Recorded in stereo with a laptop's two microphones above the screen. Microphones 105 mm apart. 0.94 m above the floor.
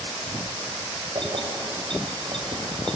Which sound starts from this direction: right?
Keys jangling, at 1.1 s.